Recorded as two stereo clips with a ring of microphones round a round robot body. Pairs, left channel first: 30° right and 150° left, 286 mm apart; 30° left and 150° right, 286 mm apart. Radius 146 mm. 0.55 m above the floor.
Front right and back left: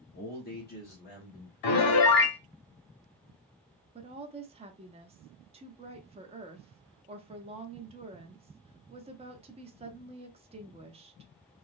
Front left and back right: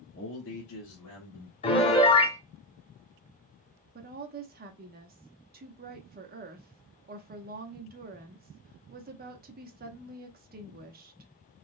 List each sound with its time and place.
0.1 s a man speaking: 5° left, 0.9 m; by 1.5 s 30° left, 1.8 m
1.6 s a piano: 40° right, 0.7 m
4.0 s a woman speaking: 160° right, 0.7 m